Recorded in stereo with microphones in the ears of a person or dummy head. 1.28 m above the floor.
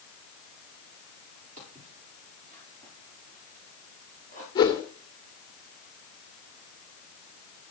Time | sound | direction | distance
1.6 | footsteps | 40° right (ahead or behind) | 9.5 m
4.5 | a whoosh | 25° left (ahead or behind) | 2 m